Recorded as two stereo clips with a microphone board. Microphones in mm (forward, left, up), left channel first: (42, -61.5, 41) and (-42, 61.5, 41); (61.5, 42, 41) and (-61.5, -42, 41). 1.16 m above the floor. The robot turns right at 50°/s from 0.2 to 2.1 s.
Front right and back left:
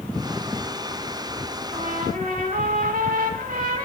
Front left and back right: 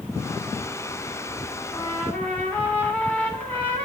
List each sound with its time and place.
1.7 s a trumpet: 95° left, 3 m; by 3.9 s 115° left, 3 m